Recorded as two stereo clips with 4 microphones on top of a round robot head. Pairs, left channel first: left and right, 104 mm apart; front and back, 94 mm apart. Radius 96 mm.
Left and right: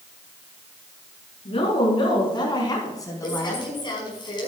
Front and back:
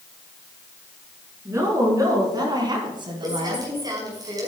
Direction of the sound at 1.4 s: 120° left.